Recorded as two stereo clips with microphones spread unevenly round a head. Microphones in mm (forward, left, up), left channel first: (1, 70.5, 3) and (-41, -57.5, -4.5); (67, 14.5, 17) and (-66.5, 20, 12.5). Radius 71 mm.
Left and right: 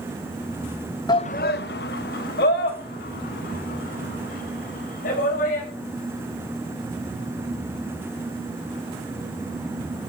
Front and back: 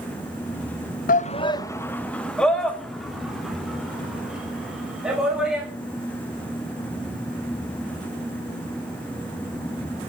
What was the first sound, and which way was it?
A shout, 10° left.